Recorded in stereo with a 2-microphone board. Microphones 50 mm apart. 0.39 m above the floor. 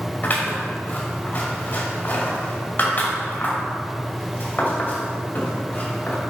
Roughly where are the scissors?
Left.